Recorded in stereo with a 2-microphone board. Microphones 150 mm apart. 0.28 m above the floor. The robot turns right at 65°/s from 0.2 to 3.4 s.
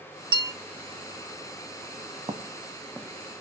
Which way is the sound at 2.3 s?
35° right (ahead or behind).